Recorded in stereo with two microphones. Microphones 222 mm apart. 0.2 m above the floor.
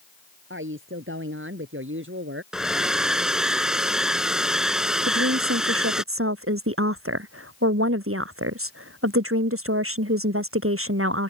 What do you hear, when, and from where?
0.5 s a woman speaking: 65° right (ahead or behind)
2.5 s a hair dryer: 5° right (ahead or behind)
5.0 s a woman speaking: 75° right (ahead or behind)